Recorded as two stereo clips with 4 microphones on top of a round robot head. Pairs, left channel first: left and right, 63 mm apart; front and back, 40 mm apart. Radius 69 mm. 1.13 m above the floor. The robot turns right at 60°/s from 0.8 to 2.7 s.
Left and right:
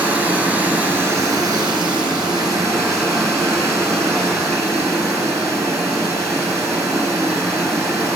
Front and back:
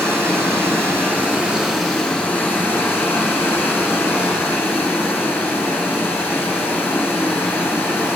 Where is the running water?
150° right, 5 m; by 8.2 s 35° right, 5 m.